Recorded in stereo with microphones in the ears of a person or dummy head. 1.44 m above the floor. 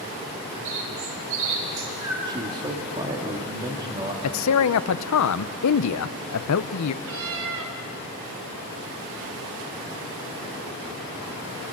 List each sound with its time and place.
0.7 s a bird: 80° right, 4 m
2.3 s a man speaking: 25° right (ahead or behind), 2.5 m
4.2 s a man speaking: 80° left, 0.9 m
7.0 s a cat meowing: 75° right (ahead or behind), 3 m